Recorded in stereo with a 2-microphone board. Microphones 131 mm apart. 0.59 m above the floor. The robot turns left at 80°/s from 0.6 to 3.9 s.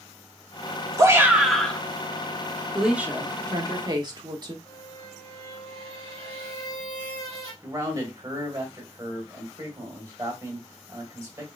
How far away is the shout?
About 1.2 m.